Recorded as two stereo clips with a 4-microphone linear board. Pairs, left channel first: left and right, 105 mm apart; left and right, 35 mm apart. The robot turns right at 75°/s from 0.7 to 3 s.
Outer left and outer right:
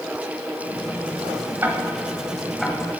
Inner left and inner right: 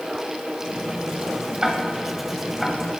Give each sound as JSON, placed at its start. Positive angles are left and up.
{"t": 1.6, "sound": "ticking", "side_deg": -20, "distance_m": 1.4}